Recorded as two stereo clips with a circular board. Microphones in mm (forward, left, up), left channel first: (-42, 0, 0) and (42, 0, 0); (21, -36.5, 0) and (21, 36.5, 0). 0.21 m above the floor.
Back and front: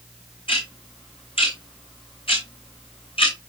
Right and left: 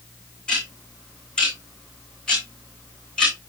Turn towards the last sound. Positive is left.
turn(degrees=-170)